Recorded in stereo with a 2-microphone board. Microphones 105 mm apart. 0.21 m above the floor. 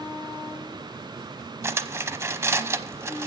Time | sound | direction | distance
1.6 | cutlery clinking | 25° right (ahead or behind) | 0.8 m